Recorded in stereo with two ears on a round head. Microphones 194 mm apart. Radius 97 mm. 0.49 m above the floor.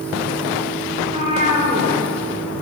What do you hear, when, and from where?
1.0 s a cat meowing: 30° right (ahead or behind), 3 m